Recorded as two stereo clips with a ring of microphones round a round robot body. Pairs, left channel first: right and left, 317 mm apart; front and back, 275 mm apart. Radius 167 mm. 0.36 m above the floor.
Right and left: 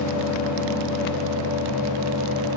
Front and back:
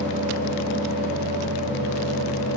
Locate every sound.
Only background noise.